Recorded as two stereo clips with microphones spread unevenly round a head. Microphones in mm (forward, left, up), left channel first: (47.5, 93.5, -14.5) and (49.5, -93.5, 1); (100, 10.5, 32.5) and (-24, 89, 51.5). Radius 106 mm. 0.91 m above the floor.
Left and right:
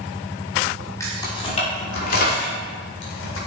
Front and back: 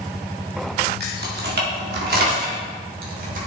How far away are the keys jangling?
About 1.8 m.